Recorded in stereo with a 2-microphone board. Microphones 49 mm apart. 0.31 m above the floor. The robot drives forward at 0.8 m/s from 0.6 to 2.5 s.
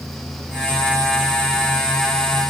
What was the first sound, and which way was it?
Only background noise.